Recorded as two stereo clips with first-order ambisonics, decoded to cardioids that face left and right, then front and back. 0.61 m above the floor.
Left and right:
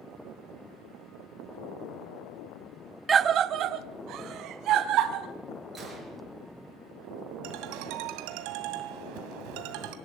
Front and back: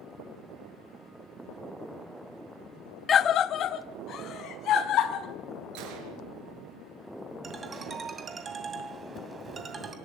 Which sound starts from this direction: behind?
A gunshot, at 5.8 s.